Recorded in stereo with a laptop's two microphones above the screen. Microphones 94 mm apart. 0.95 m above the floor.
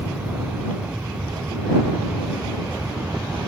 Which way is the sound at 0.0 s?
15° right (ahead or behind).